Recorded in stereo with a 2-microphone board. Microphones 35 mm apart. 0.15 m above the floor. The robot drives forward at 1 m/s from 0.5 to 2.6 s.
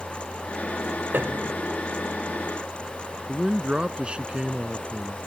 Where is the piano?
60° right (ahead or behind); by 1.6 s 55° right (ahead or behind).